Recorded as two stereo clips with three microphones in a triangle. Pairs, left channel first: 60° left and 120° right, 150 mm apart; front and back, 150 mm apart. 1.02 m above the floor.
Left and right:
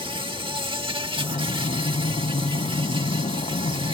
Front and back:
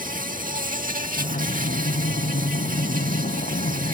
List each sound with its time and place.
0.0 s an insect: 170° right
1.2 s breathing: 15° left